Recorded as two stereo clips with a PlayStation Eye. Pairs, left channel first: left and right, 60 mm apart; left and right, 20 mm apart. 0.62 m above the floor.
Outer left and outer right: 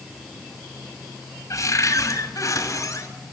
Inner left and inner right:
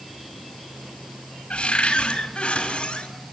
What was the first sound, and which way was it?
A cupboard door, 60° left (ahead or behind).